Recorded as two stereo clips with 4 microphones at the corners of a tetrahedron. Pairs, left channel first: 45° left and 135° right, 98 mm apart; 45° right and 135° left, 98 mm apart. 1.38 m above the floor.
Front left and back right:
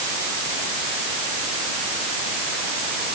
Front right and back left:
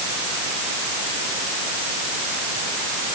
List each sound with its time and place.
Only background noise.